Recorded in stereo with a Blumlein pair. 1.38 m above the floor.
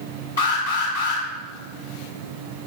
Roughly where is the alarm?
Ahead left.